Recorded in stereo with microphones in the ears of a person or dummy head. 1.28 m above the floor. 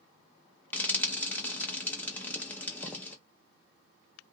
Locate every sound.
0.7 s frying: 5° left (ahead or behind), 0.5 m